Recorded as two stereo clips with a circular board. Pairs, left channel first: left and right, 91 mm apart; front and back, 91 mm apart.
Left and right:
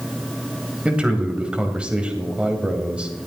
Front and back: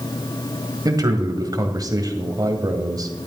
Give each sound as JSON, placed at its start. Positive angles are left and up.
{"t": 0.8, "sound": "a man speaking", "azimuth_deg": -165, "distance_m": 1.9}